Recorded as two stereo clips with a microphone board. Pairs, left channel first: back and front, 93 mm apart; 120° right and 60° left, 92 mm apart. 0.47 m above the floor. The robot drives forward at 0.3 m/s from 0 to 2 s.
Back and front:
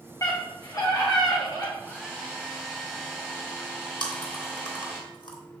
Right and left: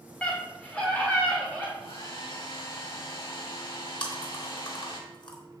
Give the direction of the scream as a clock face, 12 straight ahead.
6 o'clock.